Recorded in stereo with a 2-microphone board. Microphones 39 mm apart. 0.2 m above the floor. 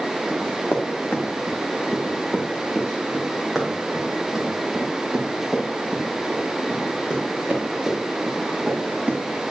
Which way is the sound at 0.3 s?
55° left (ahead or behind).